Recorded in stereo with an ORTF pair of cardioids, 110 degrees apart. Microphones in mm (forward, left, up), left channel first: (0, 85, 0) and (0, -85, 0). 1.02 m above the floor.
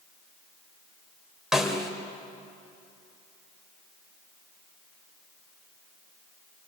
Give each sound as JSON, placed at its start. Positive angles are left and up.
{"t": 1.5, "sound": "a snare drum", "azimuth_deg": 0, "distance_m": 3.0}